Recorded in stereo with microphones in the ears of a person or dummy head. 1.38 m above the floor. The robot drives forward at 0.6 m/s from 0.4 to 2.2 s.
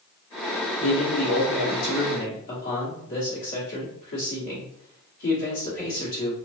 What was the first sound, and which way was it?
A man speaking, 75° left (ahead or behind).